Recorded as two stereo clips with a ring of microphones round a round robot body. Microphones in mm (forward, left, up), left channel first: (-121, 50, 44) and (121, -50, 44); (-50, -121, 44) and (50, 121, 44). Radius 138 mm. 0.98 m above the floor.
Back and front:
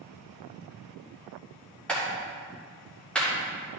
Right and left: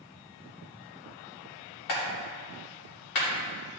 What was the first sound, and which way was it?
A clap, 115° right.